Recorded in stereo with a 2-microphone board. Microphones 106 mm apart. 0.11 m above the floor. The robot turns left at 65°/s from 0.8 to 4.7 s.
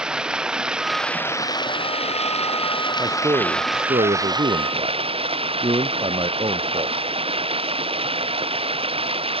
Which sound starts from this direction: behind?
Running water, at 0.0 s.